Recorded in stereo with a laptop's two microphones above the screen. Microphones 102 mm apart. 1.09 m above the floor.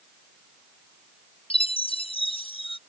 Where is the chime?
60° left (ahead or behind).